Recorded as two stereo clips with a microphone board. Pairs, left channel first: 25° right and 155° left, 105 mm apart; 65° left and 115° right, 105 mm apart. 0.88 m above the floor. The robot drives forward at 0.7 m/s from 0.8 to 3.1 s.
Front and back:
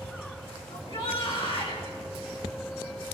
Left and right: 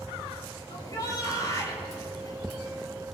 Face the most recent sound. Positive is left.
turn(degrees=15)